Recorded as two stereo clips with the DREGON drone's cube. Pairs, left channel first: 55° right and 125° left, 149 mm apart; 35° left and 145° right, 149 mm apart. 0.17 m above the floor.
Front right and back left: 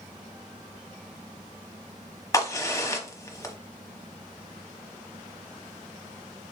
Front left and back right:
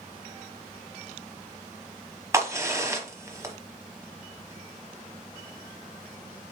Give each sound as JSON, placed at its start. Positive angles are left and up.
{"t": 2.3, "sound": "a crack", "azimuth_deg": -95, "distance_m": 1.0}